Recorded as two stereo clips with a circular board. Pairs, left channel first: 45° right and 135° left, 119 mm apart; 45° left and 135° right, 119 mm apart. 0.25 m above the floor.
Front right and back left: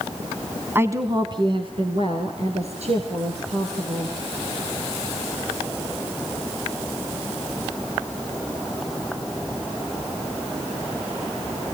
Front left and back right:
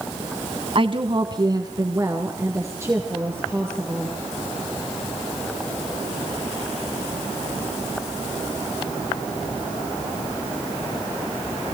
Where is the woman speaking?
160° right, 1.7 m; by 4.1 s 150° left, 6 m.